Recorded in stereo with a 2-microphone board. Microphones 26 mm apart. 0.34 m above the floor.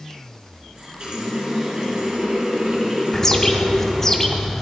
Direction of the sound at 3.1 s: 15° left (ahead or behind).